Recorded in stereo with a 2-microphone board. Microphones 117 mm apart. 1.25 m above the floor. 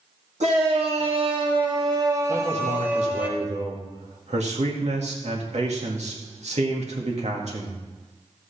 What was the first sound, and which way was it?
A shout, 75° right (ahead or behind).